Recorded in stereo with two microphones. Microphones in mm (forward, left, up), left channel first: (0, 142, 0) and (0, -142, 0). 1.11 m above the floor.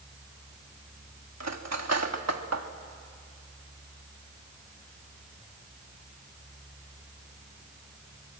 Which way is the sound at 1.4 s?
60° right (ahead or behind).